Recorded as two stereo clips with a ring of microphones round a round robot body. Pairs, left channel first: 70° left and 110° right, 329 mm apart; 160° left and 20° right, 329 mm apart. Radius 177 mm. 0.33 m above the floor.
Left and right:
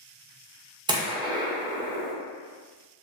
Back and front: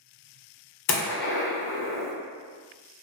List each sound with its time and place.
0.9 s a gunshot: straight behind, 0.7 m